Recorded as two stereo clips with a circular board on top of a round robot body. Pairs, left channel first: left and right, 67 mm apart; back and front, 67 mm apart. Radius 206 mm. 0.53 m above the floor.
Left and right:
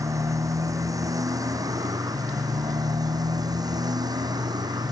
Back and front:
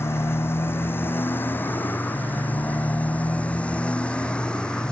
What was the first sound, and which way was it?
A motorcycle, 125° right.